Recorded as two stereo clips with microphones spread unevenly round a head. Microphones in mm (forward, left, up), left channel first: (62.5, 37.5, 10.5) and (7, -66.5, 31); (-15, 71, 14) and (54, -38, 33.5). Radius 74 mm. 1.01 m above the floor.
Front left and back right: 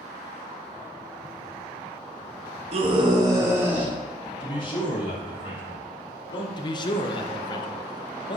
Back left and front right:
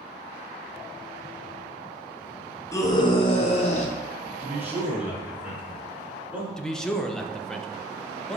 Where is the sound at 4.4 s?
20° left, 3 m.